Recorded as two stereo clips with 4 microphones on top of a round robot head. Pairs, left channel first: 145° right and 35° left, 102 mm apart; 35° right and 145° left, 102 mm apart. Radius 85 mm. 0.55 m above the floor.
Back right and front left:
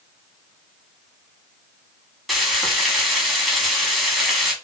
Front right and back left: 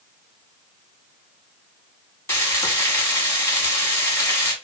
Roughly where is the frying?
Ahead right.